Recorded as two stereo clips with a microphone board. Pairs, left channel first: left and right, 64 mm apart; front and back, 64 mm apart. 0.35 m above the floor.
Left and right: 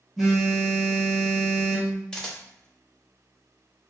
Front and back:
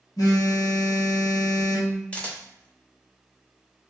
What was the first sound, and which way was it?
A phone buzzing, straight ahead.